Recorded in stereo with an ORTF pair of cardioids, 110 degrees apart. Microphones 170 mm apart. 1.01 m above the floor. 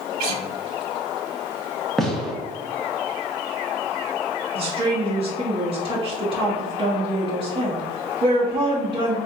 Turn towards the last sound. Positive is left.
turn(degrees=-30)